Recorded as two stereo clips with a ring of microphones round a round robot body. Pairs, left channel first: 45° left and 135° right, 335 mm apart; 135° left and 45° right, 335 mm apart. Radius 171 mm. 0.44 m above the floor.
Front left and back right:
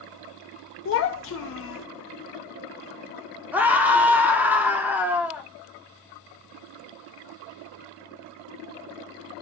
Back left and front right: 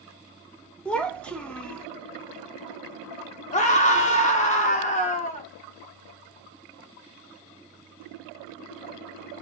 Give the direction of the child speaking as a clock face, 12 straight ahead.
10 o'clock.